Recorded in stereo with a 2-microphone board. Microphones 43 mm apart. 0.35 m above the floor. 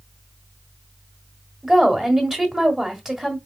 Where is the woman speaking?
10° right (ahead or behind), 1.4 m.